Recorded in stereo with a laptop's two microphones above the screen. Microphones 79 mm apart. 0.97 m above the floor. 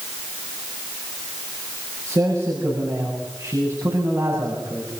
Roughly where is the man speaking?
Right.